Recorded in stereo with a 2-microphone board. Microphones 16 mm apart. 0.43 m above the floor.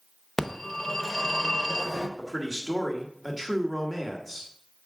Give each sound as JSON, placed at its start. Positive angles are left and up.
{"t": 0.4, "sound": "a phone ringing", "side_deg": 25, "distance_m": 0.8}
{"t": 2.2, "sound": "a man speaking", "side_deg": 10, "distance_m": 1.2}